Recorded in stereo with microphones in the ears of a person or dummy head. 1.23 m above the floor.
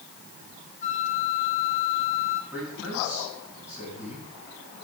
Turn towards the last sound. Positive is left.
turn(degrees=-5)  # may be behind; listen again after turning